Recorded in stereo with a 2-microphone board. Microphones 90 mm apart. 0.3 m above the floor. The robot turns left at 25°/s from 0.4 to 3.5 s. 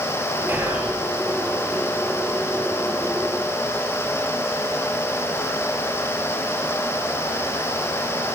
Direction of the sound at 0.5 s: 25° right (ahead or behind).